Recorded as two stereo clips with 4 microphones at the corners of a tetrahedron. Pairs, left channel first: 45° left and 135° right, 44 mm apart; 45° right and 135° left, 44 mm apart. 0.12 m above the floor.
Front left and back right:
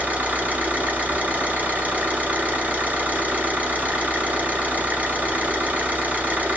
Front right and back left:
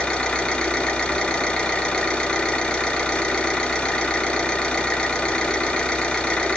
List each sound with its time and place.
0.0 s an engine running: 105° right, 0.9 m